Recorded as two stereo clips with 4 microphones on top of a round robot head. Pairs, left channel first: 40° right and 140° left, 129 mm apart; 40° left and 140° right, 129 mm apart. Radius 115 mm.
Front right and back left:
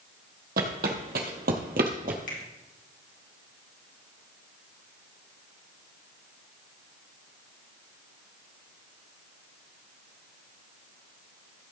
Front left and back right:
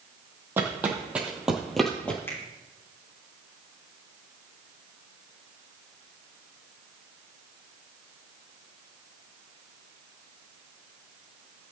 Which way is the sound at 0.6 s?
145° left.